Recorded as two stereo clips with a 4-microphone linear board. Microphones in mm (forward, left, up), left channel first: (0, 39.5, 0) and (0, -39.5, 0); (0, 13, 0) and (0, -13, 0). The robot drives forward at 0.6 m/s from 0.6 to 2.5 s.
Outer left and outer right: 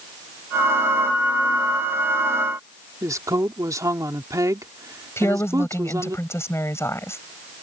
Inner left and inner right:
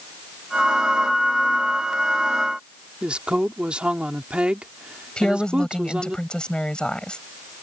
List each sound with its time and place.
3.0 s a woman speaking: 45° right (ahead or behind)
5.2 s a woman speaking: 35° left (ahead or behind)